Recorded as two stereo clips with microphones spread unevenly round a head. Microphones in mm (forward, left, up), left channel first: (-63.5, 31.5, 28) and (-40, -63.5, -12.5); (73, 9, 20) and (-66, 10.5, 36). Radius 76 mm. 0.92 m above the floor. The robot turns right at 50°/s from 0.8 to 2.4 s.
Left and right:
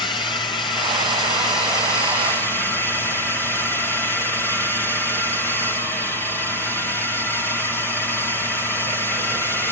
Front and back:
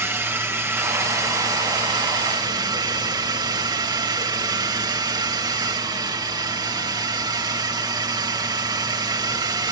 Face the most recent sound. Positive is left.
turn(degrees=-165)